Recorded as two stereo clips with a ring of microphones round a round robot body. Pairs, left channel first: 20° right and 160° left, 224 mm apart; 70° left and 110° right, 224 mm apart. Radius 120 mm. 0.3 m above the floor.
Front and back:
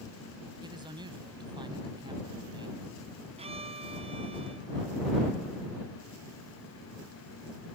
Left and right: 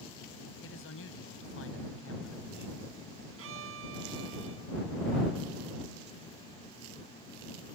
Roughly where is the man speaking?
Left.